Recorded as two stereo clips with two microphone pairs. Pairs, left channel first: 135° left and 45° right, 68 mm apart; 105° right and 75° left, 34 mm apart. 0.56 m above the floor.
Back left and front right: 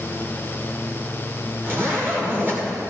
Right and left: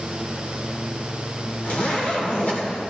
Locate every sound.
1.6 s a zipper: 95° right, 2.5 m